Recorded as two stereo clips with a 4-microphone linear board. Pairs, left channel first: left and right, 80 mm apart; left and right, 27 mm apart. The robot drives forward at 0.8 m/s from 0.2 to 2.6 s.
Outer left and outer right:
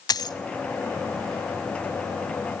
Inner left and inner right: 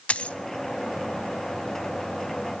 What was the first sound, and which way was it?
A dropped coin, 60° left (ahead or behind).